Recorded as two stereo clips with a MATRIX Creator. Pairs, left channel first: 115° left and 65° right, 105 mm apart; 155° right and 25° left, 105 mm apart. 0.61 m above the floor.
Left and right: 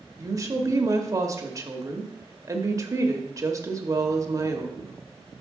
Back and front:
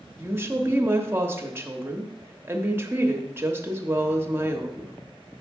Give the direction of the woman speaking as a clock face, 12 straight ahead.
1 o'clock.